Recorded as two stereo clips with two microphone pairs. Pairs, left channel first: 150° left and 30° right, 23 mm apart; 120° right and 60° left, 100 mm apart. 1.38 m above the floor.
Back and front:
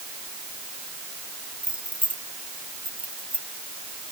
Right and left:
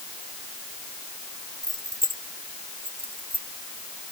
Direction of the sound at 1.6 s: 5° left.